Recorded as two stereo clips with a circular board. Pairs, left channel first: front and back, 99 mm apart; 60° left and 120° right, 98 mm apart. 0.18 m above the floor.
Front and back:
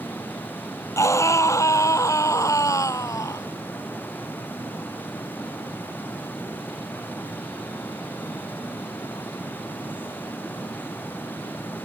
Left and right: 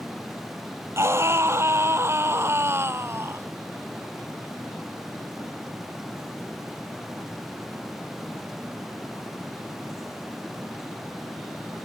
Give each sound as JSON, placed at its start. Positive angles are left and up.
{"t": 1.0, "sound": "a scream", "azimuth_deg": -60}